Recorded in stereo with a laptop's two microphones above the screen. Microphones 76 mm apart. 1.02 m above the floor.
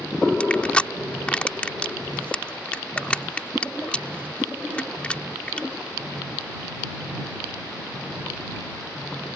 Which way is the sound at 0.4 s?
15° left (ahead or behind).